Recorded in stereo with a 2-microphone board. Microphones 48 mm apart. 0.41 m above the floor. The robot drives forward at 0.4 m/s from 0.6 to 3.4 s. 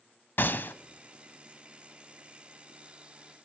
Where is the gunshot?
45° left (ahead or behind), 0.6 m; by 0.7 s 50° left (ahead or behind), 0.6 m.